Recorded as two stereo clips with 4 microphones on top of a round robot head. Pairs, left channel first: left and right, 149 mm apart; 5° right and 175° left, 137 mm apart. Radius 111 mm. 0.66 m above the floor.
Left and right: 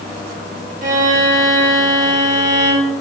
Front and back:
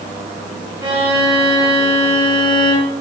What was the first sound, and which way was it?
A violin, 120° right.